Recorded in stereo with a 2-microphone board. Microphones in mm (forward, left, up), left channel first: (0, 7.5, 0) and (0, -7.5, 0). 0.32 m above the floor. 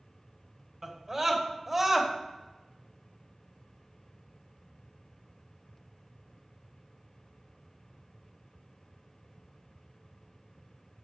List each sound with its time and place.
0.8 s a scream: 25° right (ahead or behind), 1.5 m; by 2.1 s 10° right (ahead or behind), 1.6 m